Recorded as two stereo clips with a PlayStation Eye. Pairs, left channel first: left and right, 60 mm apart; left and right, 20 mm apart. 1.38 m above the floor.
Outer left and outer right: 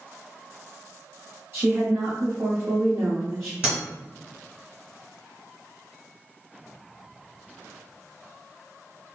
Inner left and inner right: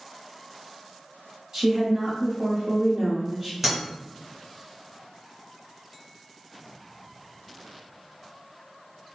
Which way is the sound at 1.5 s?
40° right (ahead or behind).